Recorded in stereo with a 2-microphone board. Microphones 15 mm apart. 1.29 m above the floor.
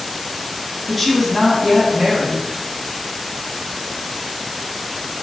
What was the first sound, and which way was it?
A woman speaking, 5° left (ahead or behind).